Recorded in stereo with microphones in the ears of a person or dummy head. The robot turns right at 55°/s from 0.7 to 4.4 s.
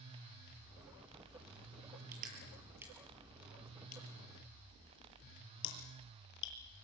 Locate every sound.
2.1 s crushing: 55° right (ahead or behind), 7 m; by 6.5 s 70° left (ahead or behind), 7 m